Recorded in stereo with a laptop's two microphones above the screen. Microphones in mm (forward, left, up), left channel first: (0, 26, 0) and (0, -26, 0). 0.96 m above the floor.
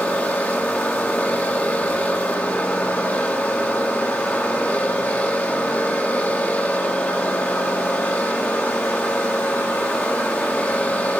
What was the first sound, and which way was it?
A machine running, 30° left (ahead or behind).